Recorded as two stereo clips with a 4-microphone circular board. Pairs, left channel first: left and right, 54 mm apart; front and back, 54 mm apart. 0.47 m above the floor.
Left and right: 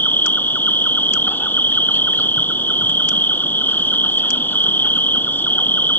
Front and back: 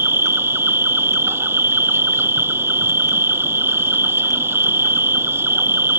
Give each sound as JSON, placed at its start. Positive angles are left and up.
{"t": 0.0, "sound": "an insect", "azimuth_deg": 140}